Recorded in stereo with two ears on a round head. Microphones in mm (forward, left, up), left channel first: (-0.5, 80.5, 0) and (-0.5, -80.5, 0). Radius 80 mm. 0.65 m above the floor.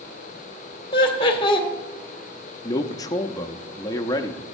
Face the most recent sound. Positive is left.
turn(degrees=20)  # may be behind; listen again after turning